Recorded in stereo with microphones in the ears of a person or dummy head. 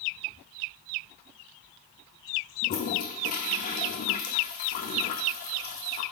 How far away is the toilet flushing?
About 0.7 m.